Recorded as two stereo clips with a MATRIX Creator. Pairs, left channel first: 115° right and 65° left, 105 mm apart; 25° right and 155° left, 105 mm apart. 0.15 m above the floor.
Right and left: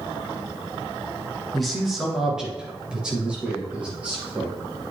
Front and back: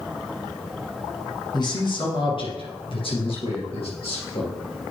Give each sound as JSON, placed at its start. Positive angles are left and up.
{"t": 1.5, "sound": "a man speaking", "azimuth_deg": -25, "distance_m": 2.0}